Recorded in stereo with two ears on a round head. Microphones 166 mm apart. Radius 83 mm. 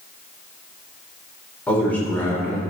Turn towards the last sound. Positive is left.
turn(degrees=10)  # may be behind; listen again after turning